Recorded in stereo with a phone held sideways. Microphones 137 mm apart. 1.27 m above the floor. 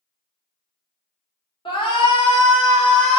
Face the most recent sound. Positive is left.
turn(degrees=40)  # may be behind; listen again after turning